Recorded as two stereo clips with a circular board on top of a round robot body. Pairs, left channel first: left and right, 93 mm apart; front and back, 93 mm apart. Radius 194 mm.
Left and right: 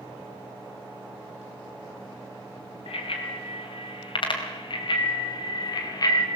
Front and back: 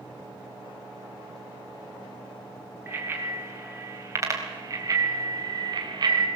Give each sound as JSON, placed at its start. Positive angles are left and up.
{"t": 2.9, "sound": "a bicycle bell", "azimuth_deg": 115, "distance_m": 3.5}